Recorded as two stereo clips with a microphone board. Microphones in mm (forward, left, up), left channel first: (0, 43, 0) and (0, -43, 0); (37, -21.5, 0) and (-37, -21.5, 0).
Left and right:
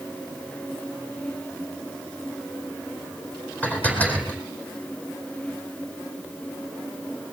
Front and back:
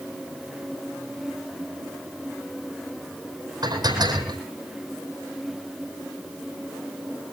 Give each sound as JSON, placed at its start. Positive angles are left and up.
{"t": 3.6, "sound": "dishes clattering", "azimuth_deg": 165, "distance_m": 4.0}